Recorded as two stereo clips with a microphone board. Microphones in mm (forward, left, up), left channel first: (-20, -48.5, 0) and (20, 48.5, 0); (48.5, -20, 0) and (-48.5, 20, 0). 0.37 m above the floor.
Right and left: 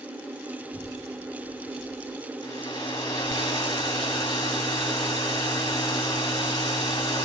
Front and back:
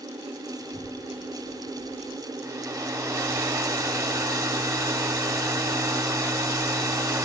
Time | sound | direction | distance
0.6 | a child speaking | 15° right | 7 m
2.4 | a hair dryer | 150° right | 1.5 m